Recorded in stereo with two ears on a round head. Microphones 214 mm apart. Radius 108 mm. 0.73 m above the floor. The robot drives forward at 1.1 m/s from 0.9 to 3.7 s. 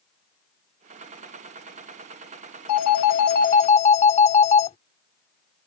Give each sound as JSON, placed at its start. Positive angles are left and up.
{"t": 2.7, "sound": "a phone ringing", "side_deg": 70}